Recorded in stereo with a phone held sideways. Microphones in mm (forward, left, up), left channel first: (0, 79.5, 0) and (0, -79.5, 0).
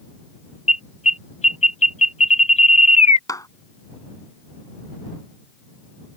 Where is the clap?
20° left (ahead or behind).